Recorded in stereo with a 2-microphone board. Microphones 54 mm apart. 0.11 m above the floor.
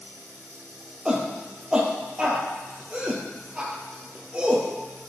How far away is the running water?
About 2.5 m.